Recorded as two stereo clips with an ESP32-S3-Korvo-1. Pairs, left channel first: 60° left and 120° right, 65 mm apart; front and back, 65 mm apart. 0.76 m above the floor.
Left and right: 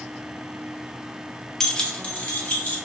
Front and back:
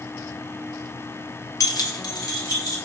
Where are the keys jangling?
25° right, 0.6 m; by 2.8 s 5° right, 1.6 m.